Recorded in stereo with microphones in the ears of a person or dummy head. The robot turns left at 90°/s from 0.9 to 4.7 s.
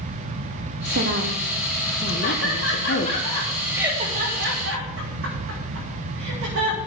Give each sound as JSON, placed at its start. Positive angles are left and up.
{"t": 0.8, "sound": "a woman speaking", "azimuth_deg": -105, "distance_m": 1.7}
{"t": 2.2, "sound": "laughter", "side_deg": 50, "distance_m": 7.0}